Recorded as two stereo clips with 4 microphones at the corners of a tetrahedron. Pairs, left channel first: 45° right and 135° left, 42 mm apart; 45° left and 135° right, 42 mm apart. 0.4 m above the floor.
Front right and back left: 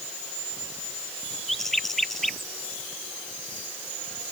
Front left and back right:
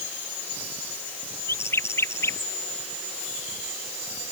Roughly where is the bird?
Ahead left.